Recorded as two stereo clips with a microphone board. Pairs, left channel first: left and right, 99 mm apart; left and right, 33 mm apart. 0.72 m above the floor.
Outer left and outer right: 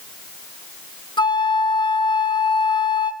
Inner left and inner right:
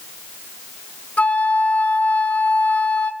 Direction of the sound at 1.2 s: 50° left (ahead or behind).